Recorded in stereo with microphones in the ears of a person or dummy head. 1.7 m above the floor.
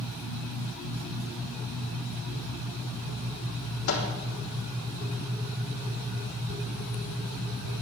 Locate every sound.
3.9 s a microwave: 55° left (ahead or behind), 3 m